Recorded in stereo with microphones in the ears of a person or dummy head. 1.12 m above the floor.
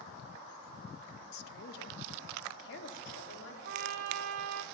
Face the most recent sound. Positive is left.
turn(degrees=-60)  # may be behind; listen again after turning